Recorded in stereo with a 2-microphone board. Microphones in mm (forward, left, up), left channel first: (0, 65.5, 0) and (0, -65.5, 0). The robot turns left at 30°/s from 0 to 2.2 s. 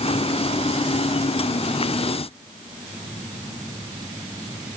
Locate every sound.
Only background noise.